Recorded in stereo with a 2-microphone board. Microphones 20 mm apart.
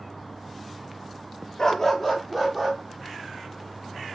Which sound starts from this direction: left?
A dog barking, at 1.6 s.